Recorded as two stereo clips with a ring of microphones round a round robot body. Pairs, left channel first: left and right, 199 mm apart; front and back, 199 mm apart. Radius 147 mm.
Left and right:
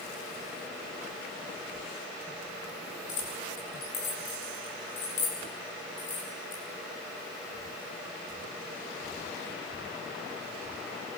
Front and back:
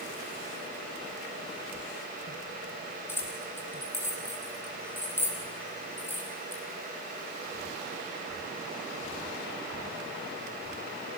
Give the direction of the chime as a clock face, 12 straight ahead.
No chime in this recording.